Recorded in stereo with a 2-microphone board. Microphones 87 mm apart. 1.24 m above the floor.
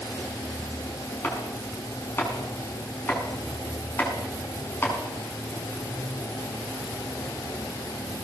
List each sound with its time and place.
1.2 s chopping: 25° left (ahead or behind), 6.5 m